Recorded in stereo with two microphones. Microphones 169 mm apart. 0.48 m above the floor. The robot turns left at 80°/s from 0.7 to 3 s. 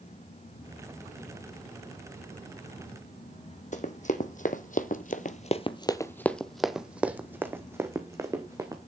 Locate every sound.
3.7 s running footsteps: 45° left (ahead or behind), 1.3 m; by 8.8 s 20° right (ahead or behind), 2 m